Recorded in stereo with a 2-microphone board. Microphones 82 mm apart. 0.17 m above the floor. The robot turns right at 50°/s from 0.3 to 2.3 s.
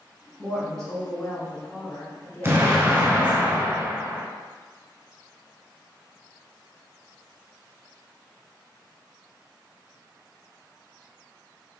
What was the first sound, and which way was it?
A woman speaking, 5° right (ahead or behind).